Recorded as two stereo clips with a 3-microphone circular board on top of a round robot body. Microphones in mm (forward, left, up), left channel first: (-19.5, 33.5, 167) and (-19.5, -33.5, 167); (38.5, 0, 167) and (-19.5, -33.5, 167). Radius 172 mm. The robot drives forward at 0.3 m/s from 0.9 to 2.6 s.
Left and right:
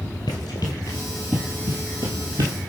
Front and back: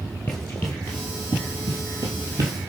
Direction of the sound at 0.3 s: 90° left.